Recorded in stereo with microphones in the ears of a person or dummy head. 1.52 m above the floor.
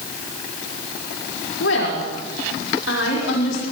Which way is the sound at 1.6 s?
75° left (ahead or behind).